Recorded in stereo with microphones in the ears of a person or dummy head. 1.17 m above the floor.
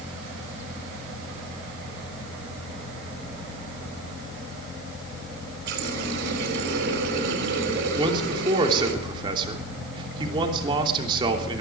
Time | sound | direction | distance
5.7 | a running tap | 70° right (ahead or behind) | 4.5 m
8.0 | a man speaking | 30° right (ahead or behind) | 3 m